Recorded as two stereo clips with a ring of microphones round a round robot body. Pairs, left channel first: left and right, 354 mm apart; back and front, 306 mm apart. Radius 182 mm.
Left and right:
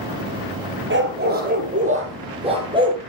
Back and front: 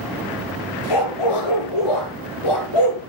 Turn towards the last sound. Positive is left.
turn(degrees=-170)